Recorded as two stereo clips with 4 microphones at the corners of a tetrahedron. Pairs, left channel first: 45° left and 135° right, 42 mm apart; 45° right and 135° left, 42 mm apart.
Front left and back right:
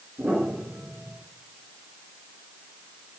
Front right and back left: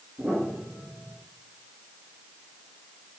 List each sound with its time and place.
0.2 s a piano: 170° right, 5.5 m